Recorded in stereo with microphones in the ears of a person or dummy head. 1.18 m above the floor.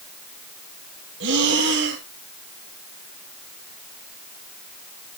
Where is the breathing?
60° right (ahead or behind), 2 m.